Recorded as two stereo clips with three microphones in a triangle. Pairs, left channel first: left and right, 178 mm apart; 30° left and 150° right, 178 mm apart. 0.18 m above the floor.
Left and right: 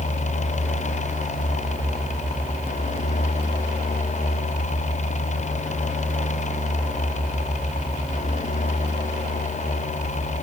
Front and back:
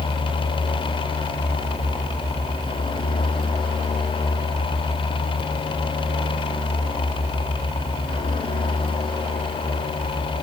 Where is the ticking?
I don't hear ticking.